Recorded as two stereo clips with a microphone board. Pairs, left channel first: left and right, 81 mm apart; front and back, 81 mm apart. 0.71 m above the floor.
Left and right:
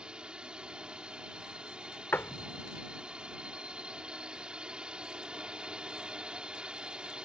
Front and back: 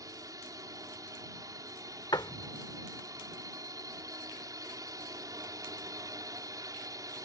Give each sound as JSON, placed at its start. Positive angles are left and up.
{"t": 0.0, "sound": "a drone", "azimuth_deg": -165}
{"t": 2.1, "sound": "a door slam", "azimuth_deg": 25}